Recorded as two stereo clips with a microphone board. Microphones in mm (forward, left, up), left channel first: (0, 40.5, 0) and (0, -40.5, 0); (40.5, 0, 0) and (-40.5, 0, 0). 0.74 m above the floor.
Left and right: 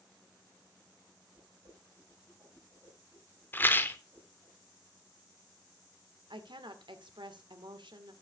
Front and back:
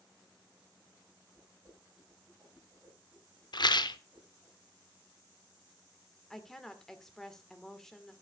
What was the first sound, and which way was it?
A whoosh, 135° right.